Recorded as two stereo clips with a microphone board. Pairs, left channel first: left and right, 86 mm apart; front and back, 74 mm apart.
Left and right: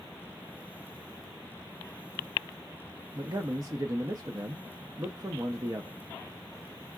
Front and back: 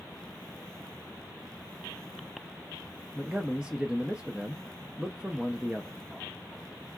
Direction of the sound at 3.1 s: 105° right.